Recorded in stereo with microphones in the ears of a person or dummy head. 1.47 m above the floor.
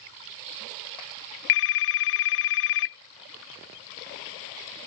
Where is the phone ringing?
65° left (ahead or behind).